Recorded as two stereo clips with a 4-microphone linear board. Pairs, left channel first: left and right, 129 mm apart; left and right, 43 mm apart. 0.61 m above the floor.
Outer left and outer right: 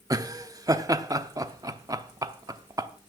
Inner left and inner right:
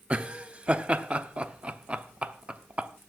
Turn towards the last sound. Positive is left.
turn(degrees=-30)  # may be behind; listen again after turning